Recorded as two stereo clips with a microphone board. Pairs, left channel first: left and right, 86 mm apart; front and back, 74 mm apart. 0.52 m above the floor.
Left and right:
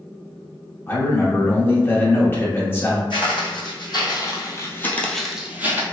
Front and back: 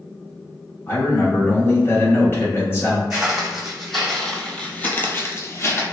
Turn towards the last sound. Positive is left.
turn(degrees=-40)